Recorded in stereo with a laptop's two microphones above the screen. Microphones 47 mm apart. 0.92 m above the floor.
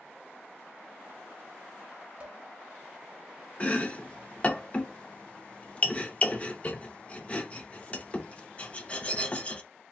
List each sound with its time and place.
2.2 s dishes clattering: 25° right (ahead or behind), 1.1 m
3.6 s chopping: 30° left (ahead or behind), 0.7 m